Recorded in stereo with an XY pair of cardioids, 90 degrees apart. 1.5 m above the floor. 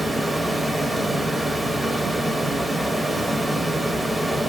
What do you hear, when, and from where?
0.0 s running water: 15° right, 0.8 m